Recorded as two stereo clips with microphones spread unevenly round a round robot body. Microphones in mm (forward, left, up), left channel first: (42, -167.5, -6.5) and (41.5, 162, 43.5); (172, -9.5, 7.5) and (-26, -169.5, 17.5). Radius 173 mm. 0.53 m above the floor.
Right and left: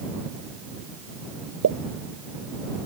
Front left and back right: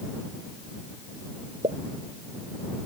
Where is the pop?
140° left.